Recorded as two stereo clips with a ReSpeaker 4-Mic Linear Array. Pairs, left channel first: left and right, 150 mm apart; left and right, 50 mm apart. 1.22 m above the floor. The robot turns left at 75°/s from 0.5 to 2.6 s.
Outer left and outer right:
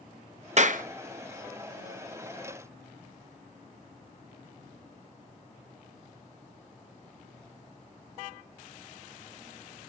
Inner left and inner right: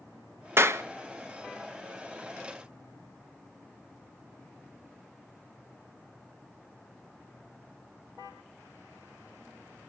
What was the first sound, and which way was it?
A clap, 50° right (ahead or behind).